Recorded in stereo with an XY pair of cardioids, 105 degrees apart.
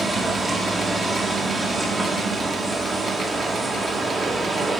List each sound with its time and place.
0.0 s a machine running: 25° right, 1.7 m